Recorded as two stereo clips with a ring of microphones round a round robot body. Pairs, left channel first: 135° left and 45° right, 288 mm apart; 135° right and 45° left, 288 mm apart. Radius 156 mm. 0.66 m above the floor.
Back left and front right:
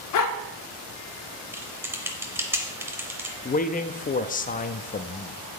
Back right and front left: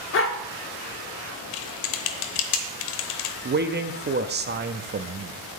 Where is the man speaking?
85° left, 0.7 m.